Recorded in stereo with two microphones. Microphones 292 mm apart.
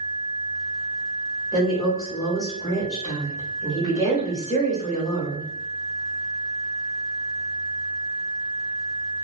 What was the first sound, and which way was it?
A woman speaking, 15° left (ahead or behind).